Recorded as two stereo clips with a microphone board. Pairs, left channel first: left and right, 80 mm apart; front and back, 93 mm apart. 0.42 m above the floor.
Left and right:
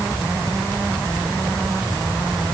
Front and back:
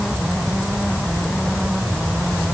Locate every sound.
Only background noise.